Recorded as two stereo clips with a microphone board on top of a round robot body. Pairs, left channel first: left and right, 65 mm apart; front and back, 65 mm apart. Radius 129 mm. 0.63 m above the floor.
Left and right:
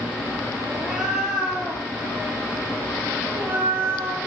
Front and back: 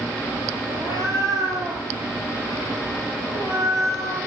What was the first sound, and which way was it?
A cat meowing, 5° right.